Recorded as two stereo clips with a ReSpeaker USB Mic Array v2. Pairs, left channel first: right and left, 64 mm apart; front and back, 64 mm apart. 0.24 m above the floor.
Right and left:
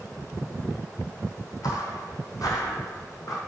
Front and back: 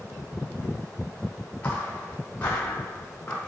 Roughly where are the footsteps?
Right.